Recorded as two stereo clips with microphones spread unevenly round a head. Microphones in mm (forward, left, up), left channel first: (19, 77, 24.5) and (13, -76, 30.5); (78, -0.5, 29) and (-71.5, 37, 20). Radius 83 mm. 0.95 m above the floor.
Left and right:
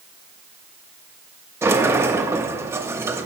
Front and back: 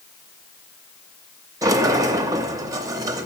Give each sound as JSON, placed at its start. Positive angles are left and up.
{"t": 1.6, "sound": "a sliding door", "azimuth_deg": -155, "distance_m": 0.8}